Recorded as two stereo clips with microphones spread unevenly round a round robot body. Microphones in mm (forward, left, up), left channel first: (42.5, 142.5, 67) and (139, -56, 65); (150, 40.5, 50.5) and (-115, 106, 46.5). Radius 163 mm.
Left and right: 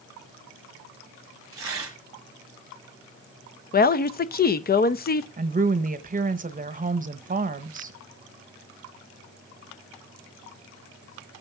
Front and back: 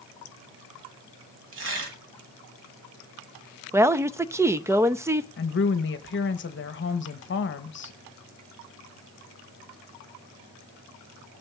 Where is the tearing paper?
140° right, 1.0 m.